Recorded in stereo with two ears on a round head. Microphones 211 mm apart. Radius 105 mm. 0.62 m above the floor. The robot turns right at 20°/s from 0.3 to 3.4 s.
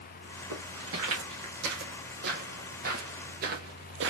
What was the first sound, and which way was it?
Footsteps, 65° right (ahead or behind).